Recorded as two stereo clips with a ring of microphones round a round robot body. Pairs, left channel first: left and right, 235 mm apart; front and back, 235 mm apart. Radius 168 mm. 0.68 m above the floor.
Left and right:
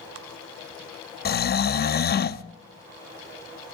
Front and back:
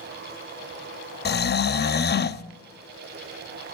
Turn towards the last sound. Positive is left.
turn(degrees=45)